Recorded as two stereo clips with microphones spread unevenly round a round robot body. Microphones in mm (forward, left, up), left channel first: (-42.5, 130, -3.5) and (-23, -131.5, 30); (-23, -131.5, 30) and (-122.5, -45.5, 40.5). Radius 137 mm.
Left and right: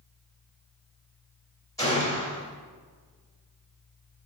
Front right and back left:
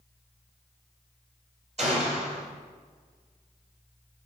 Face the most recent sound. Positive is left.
turn(degrees=165)